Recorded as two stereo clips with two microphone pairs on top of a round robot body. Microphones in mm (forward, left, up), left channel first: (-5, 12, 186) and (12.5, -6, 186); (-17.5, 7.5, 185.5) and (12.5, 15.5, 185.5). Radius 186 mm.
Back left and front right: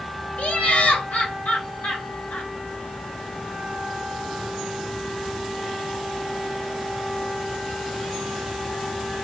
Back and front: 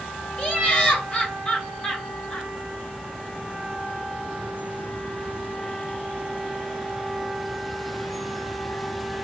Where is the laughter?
135° left, 2.5 m.